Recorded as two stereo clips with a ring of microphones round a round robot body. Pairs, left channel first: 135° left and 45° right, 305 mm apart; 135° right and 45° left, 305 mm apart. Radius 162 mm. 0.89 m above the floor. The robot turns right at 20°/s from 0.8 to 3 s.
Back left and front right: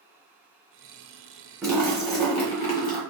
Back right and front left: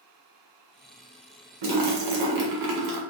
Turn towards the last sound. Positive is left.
turn(degrees=75)